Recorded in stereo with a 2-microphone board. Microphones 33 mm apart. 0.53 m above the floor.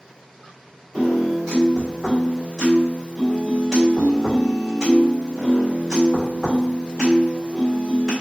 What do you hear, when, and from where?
0.9 s a piano: 15° left (ahead or behind), 1.6 m